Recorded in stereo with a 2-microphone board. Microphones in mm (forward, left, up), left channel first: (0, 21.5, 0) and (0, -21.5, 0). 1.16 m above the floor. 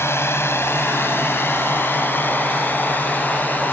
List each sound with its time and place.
0.0 s a drone: 70° left (ahead or behind); by 3.7 s 40° left (ahead or behind)